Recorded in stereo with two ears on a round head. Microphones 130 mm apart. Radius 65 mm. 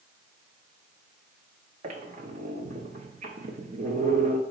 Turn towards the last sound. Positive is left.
turn(degrees=-55)  # may be behind; listen again after turning